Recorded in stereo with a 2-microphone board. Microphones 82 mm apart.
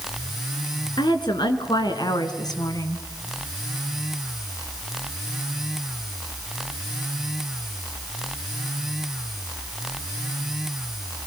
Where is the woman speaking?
65° left (ahead or behind), 3.5 m; by 3.0 s 45° left (ahead or behind), 2 m.